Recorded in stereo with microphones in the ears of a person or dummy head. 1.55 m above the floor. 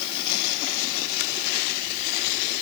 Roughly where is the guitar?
No guitar in this recording.